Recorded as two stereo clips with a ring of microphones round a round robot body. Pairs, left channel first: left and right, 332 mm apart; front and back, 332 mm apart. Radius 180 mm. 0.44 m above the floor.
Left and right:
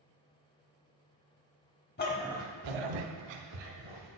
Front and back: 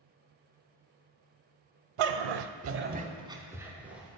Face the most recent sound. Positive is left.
turn(degrees=-95)